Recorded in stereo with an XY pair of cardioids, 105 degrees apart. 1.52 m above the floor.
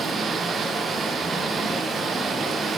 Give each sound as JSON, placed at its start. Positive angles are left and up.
{"t": 0.0, "sound": "running water", "azimuth_deg": -40, "distance_m": 1.4}